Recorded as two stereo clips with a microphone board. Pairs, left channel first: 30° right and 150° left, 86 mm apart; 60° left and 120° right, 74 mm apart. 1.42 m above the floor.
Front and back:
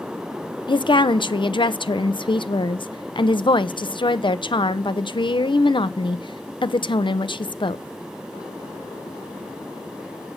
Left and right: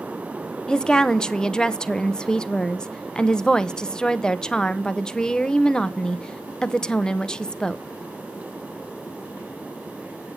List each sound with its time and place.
0.7 s a woman speaking: 20° right, 0.6 m